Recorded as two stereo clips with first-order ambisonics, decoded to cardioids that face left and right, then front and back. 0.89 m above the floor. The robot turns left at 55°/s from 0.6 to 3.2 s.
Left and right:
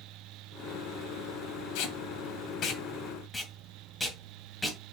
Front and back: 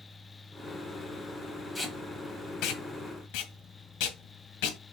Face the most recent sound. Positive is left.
turn(degrees=5)